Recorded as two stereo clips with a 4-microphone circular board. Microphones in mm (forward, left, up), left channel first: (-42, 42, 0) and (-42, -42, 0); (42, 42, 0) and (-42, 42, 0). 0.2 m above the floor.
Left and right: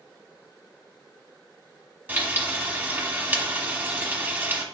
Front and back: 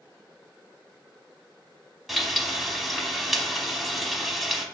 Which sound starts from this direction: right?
Frying, at 2.1 s.